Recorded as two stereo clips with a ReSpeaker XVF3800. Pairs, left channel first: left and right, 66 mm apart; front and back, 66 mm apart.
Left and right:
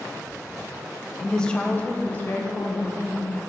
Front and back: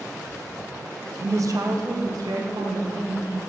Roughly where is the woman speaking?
Behind.